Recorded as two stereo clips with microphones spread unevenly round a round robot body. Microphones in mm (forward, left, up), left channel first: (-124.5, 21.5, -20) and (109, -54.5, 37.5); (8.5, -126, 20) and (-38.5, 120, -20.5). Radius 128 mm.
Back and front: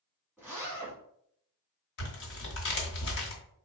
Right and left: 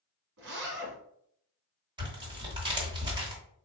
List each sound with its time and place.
0.4 s a zipper: 70° left, 1.5 m
2.0 s tearing paper: 165° left, 1.5 m